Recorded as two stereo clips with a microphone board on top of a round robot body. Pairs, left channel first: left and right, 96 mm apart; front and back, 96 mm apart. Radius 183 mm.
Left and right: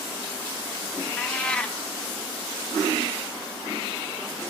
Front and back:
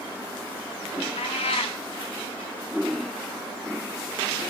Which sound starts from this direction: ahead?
A cat meowing, at 1.2 s.